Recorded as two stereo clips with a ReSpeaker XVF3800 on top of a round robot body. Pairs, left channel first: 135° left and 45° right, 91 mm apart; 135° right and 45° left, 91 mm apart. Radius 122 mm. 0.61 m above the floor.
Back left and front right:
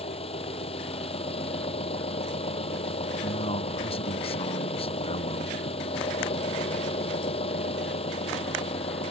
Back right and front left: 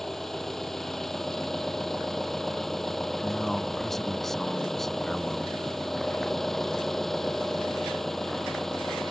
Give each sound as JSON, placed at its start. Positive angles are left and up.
{"t": 0.0, "sound": "an engine running", "azimuth_deg": 140}
{"t": 3.2, "sound": "a man speaking", "azimuth_deg": 140}